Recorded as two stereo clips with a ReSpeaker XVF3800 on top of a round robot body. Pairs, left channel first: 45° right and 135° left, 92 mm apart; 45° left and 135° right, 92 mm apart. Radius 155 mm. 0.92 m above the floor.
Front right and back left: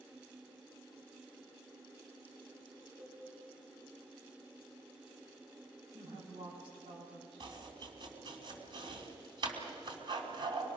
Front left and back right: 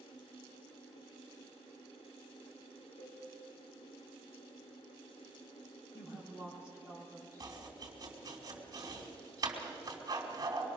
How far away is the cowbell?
About 5 m.